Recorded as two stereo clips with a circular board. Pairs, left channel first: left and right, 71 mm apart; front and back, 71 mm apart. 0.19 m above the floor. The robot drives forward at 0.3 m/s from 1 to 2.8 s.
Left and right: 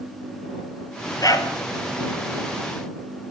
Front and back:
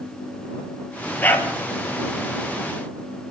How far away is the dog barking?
About 1.6 m.